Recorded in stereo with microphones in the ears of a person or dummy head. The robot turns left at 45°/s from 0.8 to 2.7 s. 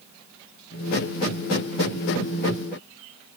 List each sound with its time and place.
Only background noise.